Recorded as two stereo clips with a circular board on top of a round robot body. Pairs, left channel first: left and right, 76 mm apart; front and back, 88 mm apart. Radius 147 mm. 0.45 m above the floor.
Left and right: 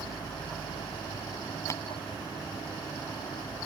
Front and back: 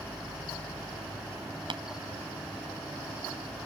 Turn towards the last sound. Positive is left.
turn(degrees=145)